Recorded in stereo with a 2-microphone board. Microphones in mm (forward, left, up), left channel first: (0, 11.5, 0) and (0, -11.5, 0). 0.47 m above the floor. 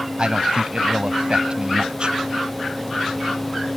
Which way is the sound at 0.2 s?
50° right (ahead or behind).